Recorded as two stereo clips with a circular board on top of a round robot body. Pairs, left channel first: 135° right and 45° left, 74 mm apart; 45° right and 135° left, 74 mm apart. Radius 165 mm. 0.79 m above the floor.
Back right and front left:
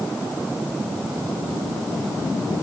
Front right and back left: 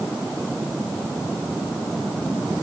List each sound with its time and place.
Only background noise.